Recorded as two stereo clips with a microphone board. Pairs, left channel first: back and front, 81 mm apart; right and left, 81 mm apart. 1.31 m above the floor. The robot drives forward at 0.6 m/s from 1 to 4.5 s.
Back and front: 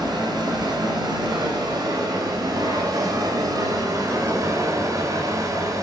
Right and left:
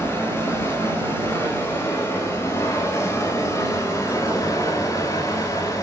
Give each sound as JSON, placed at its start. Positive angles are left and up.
{"t": 0.0, "sound": "running water", "azimuth_deg": -35, "distance_m": 6.5}